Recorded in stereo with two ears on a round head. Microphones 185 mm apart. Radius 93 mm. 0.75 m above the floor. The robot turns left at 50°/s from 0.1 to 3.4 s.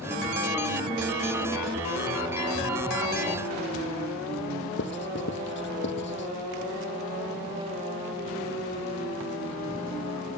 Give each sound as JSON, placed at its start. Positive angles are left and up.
{"t": 4.8, "sound": "writing", "side_deg": 60}